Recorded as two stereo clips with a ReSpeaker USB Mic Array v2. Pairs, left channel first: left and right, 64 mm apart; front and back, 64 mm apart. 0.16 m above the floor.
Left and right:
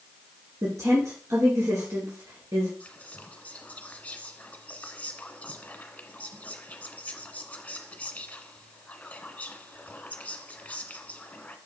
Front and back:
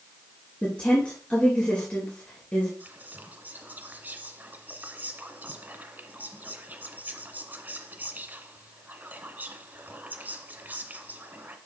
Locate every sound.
0.6 s a woman speaking: 65° right, 3 m
2.8 s whispering: 145° left, 1.2 m